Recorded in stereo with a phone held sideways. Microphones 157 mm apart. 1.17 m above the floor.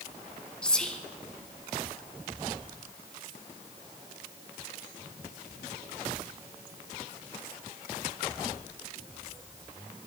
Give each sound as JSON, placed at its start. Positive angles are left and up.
{"t": 0.6, "sound": "whispering", "side_deg": 5, "distance_m": 0.5}